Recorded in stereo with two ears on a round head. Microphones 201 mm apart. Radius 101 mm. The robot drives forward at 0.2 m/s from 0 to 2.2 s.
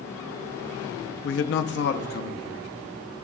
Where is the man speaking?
55° left (ahead or behind), 0.6 m; by 2.7 s 45° left (ahead or behind), 0.7 m.